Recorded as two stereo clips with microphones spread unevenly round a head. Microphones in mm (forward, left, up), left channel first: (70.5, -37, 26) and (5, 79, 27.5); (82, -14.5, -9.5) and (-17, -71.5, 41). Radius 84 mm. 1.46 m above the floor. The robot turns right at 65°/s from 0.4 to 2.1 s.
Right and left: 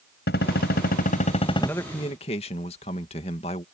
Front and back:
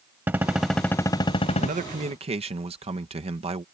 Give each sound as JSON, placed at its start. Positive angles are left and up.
{"t": 0.3, "sound": "a gunshot", "azimuth_deg": -80}
{"t": 1.6, "sound": "a man speaking", "azimuth_deg": -145}